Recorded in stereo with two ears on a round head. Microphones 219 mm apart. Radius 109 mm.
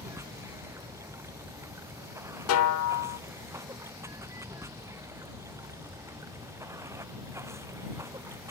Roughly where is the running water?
Centre.